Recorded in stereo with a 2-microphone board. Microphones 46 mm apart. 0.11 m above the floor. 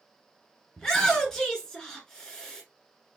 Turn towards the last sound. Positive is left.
turn(degrees=15)  # may be behind; listen again after turning